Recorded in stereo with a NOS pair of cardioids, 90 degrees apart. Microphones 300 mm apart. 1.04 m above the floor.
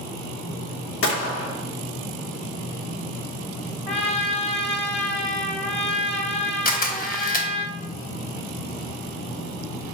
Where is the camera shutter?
30° left, 0.9 m.